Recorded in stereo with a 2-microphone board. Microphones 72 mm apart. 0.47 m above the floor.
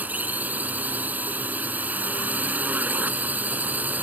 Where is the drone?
20° right (ahead or behind).